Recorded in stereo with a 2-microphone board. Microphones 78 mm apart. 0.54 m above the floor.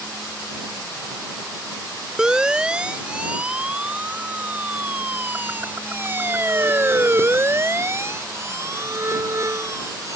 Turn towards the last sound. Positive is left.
turn(degrees=-40)  # may be behind; listen again after turning